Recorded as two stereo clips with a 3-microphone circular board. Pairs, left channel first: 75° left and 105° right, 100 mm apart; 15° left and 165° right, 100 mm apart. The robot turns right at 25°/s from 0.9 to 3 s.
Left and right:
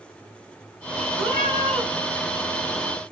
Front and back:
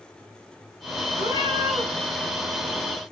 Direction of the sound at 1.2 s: 160° right.